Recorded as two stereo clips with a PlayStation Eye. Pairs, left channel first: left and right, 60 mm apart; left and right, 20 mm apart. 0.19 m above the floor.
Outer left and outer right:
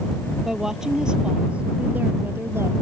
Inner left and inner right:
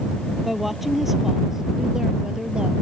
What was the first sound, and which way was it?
A woman speaking, 5° right (ahead or behind).